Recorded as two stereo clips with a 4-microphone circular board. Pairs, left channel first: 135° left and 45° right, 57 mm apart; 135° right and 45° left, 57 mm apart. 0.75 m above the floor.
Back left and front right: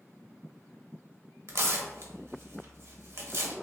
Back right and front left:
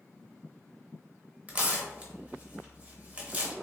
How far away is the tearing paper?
About 0.7 m.